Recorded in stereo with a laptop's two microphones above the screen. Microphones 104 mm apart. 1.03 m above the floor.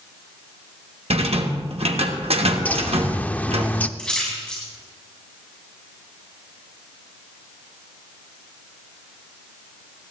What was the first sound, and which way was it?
A rattle, 75° right (ahead or behind).